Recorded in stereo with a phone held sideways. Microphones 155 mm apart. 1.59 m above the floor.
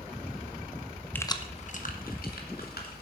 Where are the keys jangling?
10° left (ahead or behind), 0.7 m; by 3.0 s 75° left (ahead or behind), 2.5 m.